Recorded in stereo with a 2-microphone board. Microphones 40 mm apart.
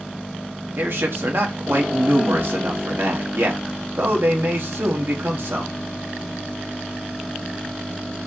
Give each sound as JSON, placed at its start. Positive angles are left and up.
{"t": 0.8, "sound": "a man speaking", "side_deg": -65, "distance_m": 1.2}